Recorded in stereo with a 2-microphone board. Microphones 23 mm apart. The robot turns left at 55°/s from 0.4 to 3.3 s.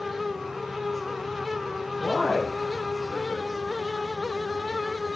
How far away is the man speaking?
About 3.5 m.